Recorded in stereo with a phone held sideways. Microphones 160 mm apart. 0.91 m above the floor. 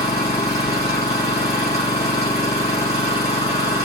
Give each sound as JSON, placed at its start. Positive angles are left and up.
{"t": 0.0, "sound": "an engine running", "side_deg": 85, "distance_m": 2.0}